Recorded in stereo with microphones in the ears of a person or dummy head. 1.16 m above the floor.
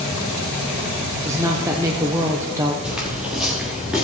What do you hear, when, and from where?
1.2 s a woman speaking: 15° right (ahead or behind), 0.8 m
2.8 s footsteps: 5° right (ahead or behind), 1.7 m